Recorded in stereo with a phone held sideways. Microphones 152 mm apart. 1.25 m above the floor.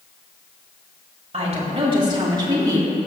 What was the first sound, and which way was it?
A woman speaking, 45° right (ahead or behind).